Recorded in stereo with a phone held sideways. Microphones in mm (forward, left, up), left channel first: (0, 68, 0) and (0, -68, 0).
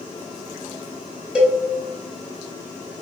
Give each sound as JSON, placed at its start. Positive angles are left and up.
{"t": 1.4, "sound": "a cowbell", "side_deg": -5, "distance_m": 1.0}